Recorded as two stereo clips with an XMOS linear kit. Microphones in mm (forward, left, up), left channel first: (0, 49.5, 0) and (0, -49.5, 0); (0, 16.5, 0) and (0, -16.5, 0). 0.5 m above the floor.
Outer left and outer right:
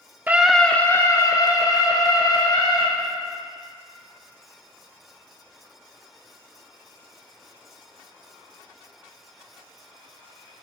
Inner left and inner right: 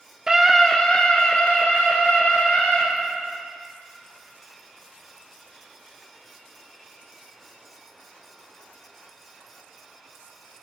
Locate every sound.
0.3 s a scream: 20° right (ahead or behind), 0.7 m; by 2.8 s 45° left (ahead or behind), 2.5 m